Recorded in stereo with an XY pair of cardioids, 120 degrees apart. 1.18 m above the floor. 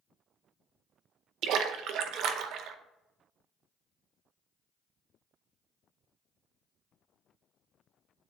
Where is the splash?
70° right, 0.7 m.